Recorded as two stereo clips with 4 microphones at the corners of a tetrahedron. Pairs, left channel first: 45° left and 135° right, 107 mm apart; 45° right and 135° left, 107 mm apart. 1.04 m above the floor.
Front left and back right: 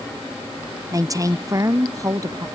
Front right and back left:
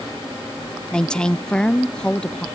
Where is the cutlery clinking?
I don't hear cutlery clinking.